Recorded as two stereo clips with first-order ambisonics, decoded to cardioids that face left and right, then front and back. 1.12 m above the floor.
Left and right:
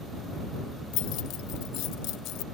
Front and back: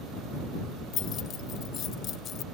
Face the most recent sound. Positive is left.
turn(degrees=55)